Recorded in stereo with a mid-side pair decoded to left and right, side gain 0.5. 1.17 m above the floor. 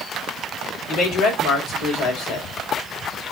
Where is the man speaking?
70° left, 5 m.